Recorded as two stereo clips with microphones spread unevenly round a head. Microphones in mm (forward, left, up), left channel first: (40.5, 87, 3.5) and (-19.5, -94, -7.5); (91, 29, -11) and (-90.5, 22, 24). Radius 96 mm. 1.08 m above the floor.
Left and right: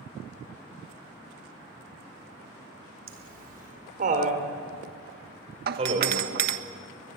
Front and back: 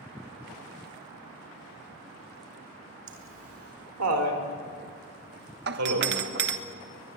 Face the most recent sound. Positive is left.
turn(degrees=-140)